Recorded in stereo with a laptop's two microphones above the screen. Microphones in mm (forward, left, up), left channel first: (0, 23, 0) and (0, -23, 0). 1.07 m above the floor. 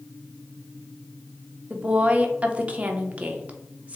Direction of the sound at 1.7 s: 25° right (ahead or behind).